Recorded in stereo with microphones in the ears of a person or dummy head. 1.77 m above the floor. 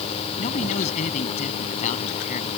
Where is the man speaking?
35° left (ahead or behind).